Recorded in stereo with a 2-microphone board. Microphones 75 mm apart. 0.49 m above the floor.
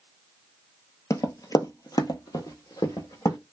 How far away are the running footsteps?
About 0.6 m.